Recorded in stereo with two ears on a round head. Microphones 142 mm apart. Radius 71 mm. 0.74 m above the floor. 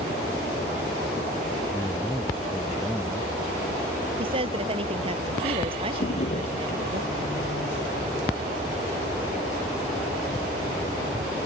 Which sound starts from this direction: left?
A drawer, at 6.0 s.